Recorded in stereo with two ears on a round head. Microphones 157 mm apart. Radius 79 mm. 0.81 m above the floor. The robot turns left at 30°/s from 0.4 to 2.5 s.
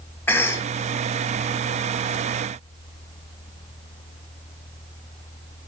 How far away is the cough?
About 0.8 m.